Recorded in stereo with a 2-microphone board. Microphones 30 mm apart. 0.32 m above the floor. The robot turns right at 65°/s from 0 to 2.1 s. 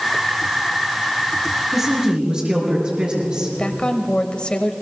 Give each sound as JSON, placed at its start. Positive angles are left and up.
{"t": 1.7, "sound": "a woman speaking", "side_deg": -5, "distance_m": 4.5}
{"t": 3.6, "sound": "a woman speaking", "side_deg": 35, "distance_m": 1.0}